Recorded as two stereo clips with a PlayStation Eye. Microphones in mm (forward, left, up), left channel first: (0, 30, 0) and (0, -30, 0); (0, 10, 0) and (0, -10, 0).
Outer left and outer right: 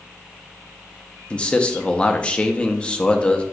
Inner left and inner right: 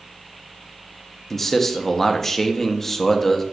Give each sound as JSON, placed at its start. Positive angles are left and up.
{"t": 1.3, "sound": "a man speaking", "side_deg": 20, "distance_m": 0.6}